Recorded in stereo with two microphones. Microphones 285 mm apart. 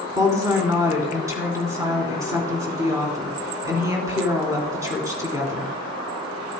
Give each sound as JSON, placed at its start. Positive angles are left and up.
{"t": 0.1, "sound": "a woman speaking", "side_deg": -10, "distance_m": 3.0}